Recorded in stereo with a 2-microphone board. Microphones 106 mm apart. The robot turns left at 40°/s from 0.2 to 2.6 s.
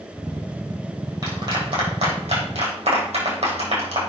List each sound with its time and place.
1.2 s a clap: 30° right (ahead or behind), 4 m; by 4.0 s 80° right, 4 m